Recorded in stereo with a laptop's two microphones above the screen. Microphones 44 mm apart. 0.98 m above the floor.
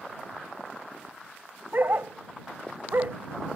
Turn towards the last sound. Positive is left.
turn(degrees=-55)  # may be behind; listen again after turning